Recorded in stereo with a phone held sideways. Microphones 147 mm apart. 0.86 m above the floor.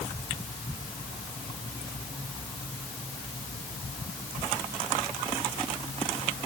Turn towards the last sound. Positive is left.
No sound to turn to.